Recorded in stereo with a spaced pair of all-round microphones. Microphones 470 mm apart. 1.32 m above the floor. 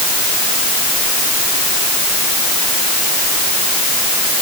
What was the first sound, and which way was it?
Only background noise.